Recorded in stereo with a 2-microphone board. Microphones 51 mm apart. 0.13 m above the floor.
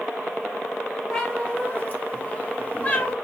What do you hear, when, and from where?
1.1 s a cat meowing: 25° left (ahead or behind), 1.3 m